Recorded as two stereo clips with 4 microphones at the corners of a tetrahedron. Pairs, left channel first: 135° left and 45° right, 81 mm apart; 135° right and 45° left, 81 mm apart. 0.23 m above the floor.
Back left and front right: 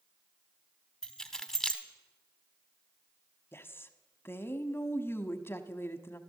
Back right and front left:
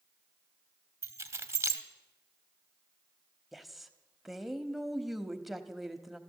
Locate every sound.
1.0 s keys jangling: 55° left, 0.9 m
3.5 s a woman speaking: 135° left, 1.0 m